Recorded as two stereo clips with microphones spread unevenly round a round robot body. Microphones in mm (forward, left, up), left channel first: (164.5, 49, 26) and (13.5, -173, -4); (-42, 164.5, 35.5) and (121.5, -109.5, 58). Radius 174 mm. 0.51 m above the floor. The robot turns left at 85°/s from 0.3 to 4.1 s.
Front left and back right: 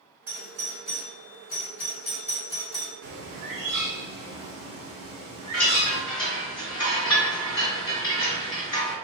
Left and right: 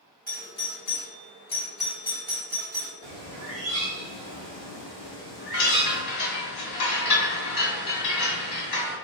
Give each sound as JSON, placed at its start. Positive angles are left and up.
{"t": 0.3, "sound": "a doorbell", "azimuth_deg": 165, "distance_m": 1.7}
{"t": 3.0, "sound": "a bird", "azimuth_deg": -105, "distance_m": 1.4}
{"t": 5.5, "sound": "a chime", "azimuth_deg": 110, "distance_m": 1.8}